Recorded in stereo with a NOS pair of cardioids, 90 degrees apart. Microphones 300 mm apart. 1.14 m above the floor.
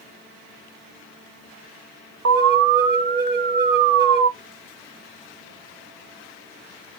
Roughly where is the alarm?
Ahead right.